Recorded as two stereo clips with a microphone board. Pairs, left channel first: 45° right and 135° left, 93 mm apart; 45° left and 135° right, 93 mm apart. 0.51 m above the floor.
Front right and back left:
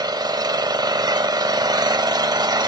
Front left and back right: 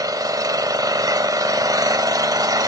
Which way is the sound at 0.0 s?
Straight behind.